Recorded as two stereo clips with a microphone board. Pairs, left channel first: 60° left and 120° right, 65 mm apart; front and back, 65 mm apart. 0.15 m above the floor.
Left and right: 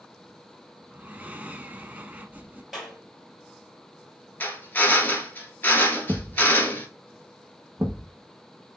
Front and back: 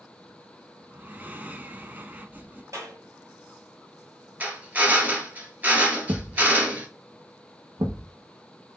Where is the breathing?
155° right, 0.6 m.